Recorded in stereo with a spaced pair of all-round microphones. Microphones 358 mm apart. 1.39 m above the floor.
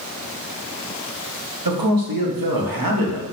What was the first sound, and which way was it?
A man speaking, 80° right.